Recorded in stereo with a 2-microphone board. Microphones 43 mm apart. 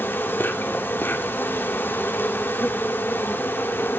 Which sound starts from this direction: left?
An insect, at 0.0 s.